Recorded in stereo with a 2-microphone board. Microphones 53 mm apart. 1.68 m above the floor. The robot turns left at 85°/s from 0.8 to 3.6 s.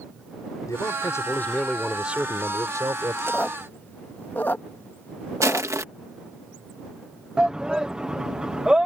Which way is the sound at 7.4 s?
15° right (ahead or behind).